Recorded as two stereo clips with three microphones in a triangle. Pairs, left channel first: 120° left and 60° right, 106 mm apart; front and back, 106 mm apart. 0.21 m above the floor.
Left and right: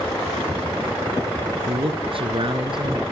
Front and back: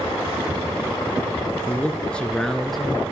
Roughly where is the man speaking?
Right.